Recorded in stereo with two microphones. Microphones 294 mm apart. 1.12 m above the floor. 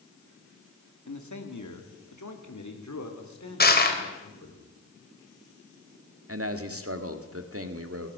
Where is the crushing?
35° left (ahead or behind), 3 m.